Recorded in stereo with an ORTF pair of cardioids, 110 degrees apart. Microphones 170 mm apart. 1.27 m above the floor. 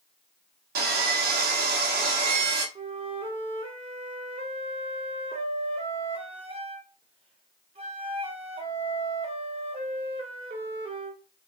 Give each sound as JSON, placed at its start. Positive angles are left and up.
{"t": 0.8, "sound": "sawing", "azimuth_deg": -65, "distance_m": 1.1}
{"t": 2.8, "sound": "a flute", "azimuth_deg": -35, "distance_m": 0.8}